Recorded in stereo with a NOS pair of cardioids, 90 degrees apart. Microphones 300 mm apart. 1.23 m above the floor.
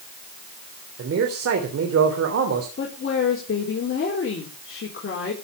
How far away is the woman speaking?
About 4 m.